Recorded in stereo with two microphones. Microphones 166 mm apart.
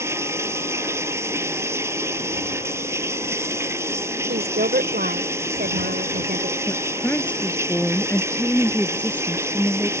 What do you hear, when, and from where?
0.0 s running water: 15° right (ahead or behind)
4.3 s a woman speaking: 70° right (ahead or behind)
6.7 s a woman speaking: 10° left (ahead or behind)